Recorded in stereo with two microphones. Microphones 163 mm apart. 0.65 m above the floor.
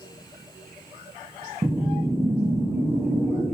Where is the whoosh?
15° right (ahead or behind), 0.5 m.